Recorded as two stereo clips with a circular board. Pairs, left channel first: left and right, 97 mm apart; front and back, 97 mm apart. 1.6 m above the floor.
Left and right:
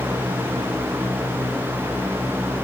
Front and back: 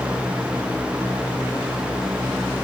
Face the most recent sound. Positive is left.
No sound to turn to.